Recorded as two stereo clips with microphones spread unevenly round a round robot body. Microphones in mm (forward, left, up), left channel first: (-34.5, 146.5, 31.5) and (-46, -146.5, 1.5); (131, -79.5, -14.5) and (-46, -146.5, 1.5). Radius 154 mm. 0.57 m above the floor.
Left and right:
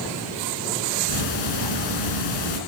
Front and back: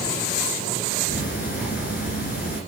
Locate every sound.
1.1 s ticking: 80° left, 2 m